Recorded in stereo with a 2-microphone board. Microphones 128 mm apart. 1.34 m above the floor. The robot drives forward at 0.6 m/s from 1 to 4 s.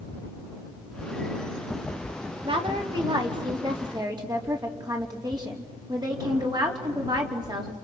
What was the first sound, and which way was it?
A woman speaking, 45° right (ahead or behind).